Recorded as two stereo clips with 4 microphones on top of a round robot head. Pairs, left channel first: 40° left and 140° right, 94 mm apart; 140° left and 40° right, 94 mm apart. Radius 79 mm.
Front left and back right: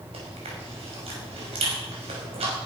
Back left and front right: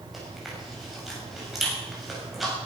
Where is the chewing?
125° right, 6 m.